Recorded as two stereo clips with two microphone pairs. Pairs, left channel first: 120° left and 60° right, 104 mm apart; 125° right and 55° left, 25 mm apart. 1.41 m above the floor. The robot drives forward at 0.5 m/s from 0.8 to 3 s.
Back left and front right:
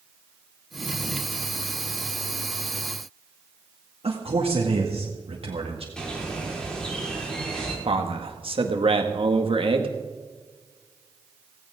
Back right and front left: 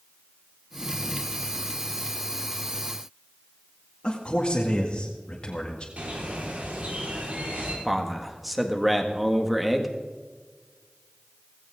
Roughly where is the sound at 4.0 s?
Right.